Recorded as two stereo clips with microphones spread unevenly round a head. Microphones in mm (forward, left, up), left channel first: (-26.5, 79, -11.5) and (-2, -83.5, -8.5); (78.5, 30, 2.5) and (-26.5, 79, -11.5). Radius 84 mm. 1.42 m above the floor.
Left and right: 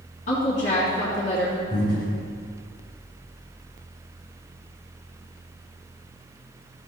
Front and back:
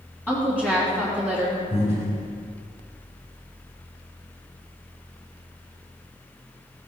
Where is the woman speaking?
45° left, 3 m.